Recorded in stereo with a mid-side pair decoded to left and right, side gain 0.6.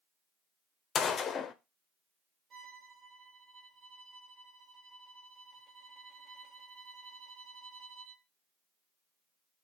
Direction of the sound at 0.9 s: 40° left.